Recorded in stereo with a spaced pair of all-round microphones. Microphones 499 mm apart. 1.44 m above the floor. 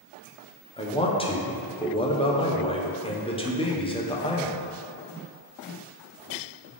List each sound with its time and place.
0.8 s a man speaking: 10° left (ahead or behind), 0.6 m